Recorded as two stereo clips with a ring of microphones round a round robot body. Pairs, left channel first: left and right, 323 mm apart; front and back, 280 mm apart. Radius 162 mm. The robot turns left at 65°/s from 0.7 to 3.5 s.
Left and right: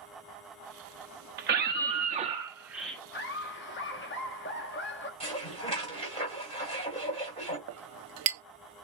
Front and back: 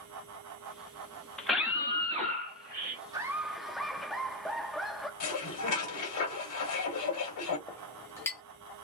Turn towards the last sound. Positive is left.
turn(degrees=-80)